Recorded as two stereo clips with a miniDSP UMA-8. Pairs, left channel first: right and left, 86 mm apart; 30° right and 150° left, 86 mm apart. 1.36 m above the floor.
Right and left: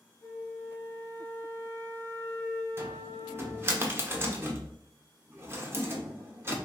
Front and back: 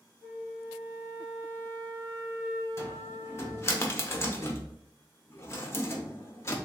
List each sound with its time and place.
0.2 s a flute: 155° right, 1.3 m
2.8 s a cupboard door: 30° left, 0.9 m